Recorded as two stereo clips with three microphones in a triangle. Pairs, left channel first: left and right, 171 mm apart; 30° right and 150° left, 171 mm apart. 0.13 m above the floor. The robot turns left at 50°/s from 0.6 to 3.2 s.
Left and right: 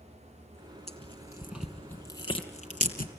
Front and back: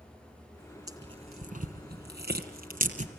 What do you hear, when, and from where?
0.9 s tearing paper: 140° right, 2.5 m; by 3.1 s 110° left, 2.5 m